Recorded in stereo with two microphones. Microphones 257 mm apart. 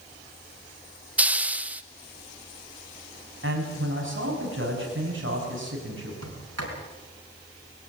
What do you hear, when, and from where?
1.2 s a hiss: 5° right (ahead or behind), 0.7 m
3.4 s a man speaking: 50° right (ahead or behind), 6 m
6.2 s a sliding door: 65° right (ahead or behind), 4.5 m